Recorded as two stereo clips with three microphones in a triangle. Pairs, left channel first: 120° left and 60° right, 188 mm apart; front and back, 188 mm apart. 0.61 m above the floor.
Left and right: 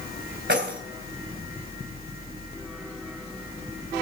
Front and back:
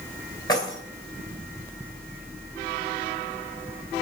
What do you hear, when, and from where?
0.5 s keys jangling: 65° right, 2 m